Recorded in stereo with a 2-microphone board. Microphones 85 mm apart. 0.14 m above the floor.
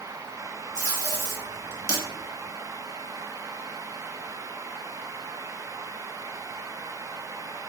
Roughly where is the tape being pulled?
Right.